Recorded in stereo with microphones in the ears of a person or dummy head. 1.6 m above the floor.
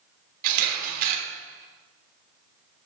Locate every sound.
0.4 s a camera shutter: 45° right (ahead or behind), 3 m